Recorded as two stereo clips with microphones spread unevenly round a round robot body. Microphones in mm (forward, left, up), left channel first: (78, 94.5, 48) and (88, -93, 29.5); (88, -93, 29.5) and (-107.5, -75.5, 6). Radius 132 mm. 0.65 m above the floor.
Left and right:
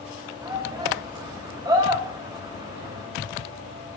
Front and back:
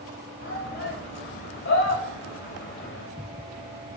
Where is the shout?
20° right, 4 m.